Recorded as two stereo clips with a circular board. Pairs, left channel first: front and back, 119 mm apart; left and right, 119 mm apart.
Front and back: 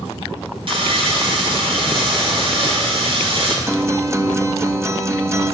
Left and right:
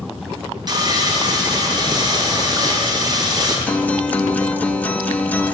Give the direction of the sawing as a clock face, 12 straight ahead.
5 o'clock.